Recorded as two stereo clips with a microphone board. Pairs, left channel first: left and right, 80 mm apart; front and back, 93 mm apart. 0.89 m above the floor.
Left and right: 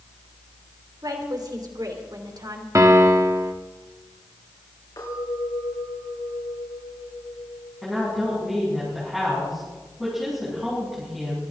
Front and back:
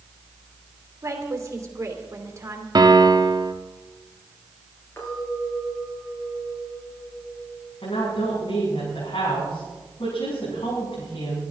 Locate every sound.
1.0 s a woman speaking: 125° right, 3 m
2.8 s a piano: 140° right, 1.0 m
5.0 s a clink: 60° left, 8 m
7.8 s a woman speaking: 5° right, 7.5 m